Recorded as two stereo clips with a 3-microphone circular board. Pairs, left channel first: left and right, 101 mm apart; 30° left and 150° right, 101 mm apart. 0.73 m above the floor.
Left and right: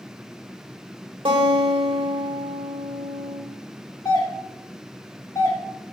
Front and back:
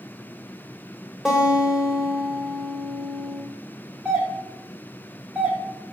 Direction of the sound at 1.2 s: 65° right.